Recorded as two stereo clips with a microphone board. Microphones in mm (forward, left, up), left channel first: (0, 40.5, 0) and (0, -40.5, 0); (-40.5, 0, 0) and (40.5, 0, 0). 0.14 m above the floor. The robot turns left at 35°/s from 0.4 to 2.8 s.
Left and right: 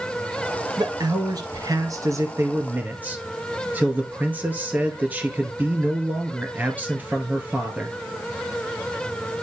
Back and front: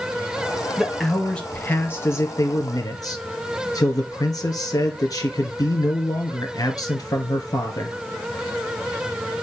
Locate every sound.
0.8 s a man speaking: 85° right, 1.9 m; by 8.0 s 155° right, 1.9 m